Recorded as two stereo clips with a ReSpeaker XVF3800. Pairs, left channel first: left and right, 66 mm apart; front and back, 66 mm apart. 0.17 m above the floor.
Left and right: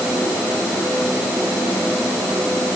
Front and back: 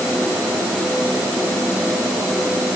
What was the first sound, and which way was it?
Only background noise.